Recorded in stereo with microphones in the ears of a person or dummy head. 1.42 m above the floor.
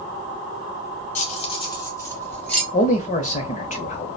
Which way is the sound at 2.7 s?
35° left (ahead or behind).